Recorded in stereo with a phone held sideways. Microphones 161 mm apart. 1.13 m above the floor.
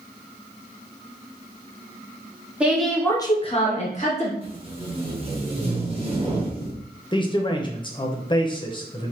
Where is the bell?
I don't hear a bell.